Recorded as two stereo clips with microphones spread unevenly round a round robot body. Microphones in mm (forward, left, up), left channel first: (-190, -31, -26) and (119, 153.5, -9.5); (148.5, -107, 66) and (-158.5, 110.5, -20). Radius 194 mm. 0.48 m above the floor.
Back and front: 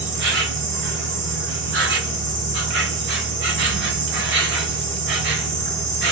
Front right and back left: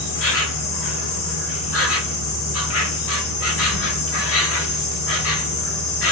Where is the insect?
10° left, 0.8 m.